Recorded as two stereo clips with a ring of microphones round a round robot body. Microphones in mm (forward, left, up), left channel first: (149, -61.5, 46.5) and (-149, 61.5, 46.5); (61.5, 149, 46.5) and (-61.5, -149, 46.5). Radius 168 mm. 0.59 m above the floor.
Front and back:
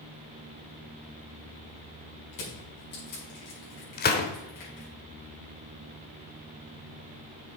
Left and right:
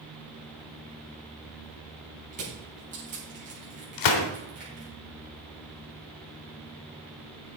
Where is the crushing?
45° right, 5.5 m.